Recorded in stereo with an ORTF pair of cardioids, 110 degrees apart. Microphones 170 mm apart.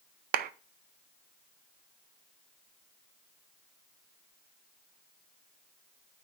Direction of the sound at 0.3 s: 60° right.